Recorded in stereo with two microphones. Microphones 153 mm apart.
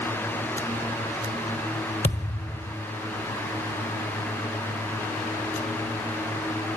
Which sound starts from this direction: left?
A thud, at 2.0 s.